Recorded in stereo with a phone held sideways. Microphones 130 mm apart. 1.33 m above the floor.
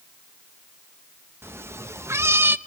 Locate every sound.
1.4 s a cat meowing: 15° right (ahead or behind), 0.7 m